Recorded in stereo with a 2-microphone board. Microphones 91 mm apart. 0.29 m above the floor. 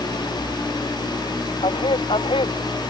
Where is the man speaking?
75° left (ahead or behind).